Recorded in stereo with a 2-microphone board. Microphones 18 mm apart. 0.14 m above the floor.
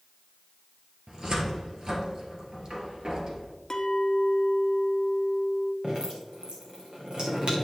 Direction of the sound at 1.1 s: 45° right (ahead or behind).